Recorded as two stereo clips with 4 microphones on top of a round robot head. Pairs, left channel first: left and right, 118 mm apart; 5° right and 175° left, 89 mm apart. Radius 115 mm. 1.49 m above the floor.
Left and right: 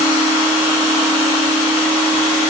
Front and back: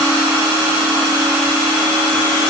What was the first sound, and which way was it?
Only background noise.